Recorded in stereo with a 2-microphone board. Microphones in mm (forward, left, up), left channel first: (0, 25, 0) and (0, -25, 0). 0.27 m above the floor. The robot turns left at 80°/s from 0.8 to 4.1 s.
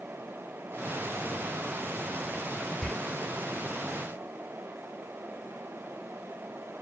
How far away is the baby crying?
I don't hear a baby crying.